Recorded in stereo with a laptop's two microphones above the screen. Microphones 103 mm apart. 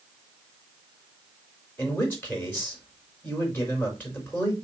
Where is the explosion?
No explosion in this recording.